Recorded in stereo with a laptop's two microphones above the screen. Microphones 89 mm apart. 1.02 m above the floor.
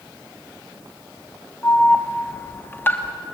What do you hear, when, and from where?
1.6 s an alarm: 25° left (ahead or behind), 1.0 m